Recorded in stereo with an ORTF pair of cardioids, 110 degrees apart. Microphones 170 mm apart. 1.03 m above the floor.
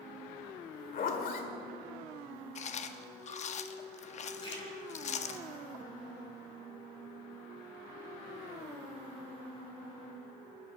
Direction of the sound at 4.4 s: 30° left.